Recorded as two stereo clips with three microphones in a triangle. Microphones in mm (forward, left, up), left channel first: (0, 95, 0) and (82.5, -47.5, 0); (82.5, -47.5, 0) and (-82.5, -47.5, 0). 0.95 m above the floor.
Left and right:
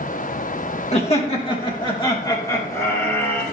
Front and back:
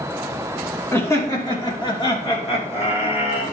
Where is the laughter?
75° left, 2.5 m; by 3.4 s 45° left, 3.5 m.